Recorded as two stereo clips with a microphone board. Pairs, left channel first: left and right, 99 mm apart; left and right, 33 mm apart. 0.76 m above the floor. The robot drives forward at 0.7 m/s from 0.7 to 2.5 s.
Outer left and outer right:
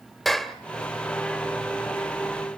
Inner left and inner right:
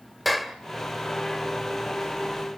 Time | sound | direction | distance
0.2 | a clap | centre (ahead or behind) | 1.6 m